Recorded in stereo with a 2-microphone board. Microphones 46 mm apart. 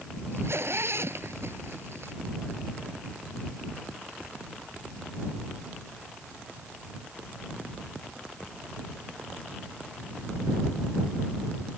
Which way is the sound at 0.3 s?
65° right (ahead or behind).